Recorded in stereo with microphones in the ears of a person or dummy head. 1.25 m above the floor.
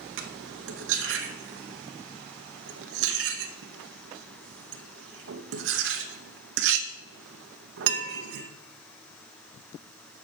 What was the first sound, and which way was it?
Cutlery clinking, 60° right (ahead or behind).